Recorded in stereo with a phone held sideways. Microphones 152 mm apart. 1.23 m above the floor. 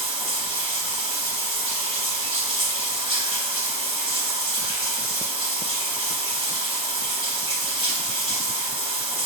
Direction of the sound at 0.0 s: 35° right (ahead or behind).